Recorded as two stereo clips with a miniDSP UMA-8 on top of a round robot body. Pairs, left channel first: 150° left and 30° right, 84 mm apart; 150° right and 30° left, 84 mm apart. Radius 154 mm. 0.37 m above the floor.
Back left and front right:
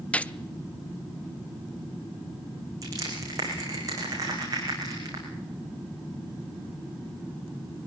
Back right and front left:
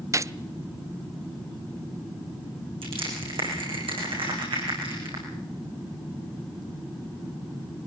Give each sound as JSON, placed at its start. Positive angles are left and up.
{"t": 0.1, "sound": "a gunshot", "azimuth_deg": 75, "distance_m": 0.7}
{"t": 2.8, "sound": "crushing", "azimuth_deg": 15, "distance_m": 9.5}